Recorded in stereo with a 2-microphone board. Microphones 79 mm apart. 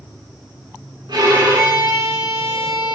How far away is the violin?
About 5.5 m.